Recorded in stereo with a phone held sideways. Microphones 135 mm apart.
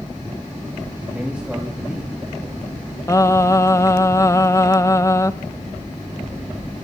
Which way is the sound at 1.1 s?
5° right (ahead or behind).